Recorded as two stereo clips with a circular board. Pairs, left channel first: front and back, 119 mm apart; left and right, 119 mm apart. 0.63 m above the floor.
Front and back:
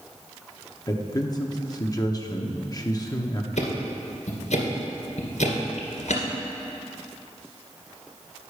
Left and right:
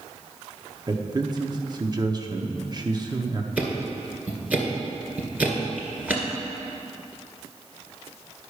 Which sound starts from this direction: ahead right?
A man speaking, at 0.9 s.